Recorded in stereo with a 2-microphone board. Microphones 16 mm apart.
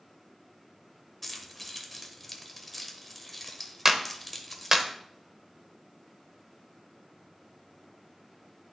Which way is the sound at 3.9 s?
25° right (ahead or behind).